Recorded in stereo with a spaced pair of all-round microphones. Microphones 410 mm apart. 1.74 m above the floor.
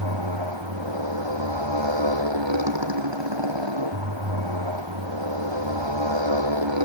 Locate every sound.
0.0 s a motorcycle: 85° right